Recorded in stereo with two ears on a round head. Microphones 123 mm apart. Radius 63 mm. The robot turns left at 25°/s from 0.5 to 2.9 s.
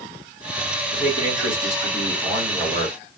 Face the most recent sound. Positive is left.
turn(degrees=175)